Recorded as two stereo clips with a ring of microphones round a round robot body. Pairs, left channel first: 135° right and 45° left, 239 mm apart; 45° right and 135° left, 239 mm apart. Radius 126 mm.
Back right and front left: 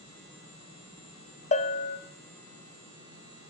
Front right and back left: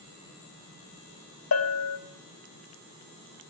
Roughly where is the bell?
Right.